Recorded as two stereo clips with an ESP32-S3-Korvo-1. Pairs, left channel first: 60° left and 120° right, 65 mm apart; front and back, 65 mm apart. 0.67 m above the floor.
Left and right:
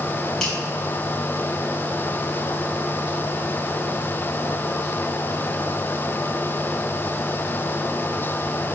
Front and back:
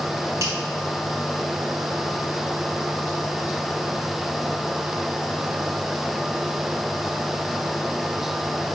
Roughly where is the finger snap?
Behind left.